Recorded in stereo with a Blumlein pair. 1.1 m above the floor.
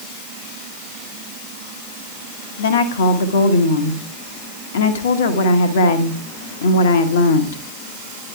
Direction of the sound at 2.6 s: 60° left.